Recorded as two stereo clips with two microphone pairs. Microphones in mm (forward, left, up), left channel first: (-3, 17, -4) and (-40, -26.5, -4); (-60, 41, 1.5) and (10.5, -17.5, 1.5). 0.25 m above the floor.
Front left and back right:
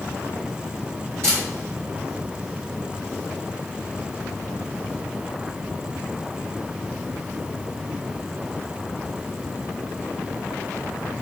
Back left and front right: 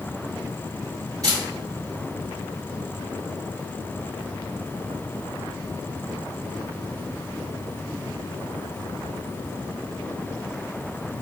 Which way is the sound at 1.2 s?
90° right.